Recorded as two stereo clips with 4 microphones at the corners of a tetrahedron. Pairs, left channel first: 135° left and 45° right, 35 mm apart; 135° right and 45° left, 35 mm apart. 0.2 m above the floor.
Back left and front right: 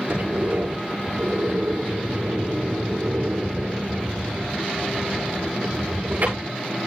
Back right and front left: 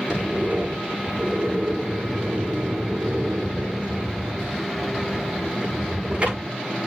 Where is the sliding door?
10° right, 9.5 m.